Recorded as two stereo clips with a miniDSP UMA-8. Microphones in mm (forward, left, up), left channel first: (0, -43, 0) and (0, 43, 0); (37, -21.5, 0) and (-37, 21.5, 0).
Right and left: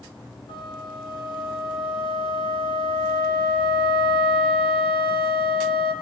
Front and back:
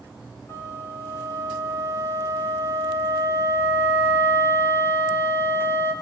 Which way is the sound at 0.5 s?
90° right.